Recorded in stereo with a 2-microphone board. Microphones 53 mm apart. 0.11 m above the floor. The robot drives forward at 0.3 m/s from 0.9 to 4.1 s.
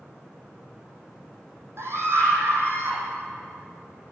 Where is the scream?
55° right (ahead or behind), 4 m; by 3.0 s 50° right (ahead or behind), 4 m.